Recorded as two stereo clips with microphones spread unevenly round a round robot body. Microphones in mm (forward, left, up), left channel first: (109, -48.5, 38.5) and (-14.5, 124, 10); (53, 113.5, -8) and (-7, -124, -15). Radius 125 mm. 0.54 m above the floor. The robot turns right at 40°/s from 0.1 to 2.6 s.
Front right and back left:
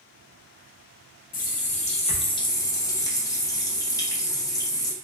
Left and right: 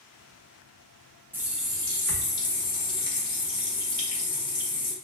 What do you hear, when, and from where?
1.3 s a running tap: 30° right, 0.6 m; by 4.9 s 20° left, 0.6 m